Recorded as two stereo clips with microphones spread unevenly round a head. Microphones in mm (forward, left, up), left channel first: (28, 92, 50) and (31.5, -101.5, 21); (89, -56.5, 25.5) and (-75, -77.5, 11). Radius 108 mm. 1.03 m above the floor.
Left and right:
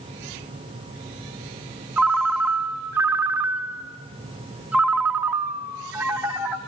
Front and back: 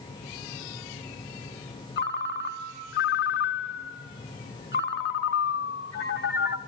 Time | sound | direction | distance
2.0 | a ringtone | 5° right | 1.3 m